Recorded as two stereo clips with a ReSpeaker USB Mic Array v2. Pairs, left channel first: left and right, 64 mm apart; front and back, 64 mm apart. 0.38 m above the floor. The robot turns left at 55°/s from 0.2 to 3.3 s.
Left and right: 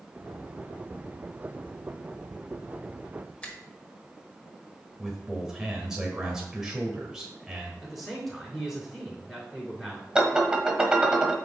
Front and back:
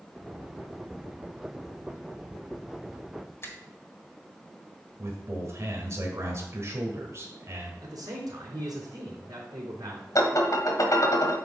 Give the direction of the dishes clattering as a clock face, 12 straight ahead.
12 o'clock.